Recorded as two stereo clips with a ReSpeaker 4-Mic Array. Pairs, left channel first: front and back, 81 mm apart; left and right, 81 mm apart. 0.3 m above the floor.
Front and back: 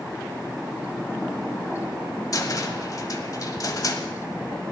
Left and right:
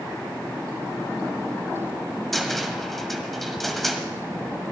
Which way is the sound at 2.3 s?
5° left.